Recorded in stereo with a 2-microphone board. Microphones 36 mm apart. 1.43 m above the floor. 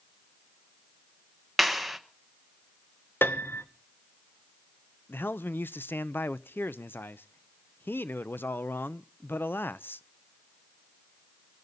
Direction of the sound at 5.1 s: 75° left (ahead or behind).